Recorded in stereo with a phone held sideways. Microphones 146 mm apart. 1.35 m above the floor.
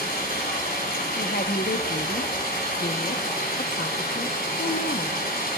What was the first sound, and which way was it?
Running water, 85° left.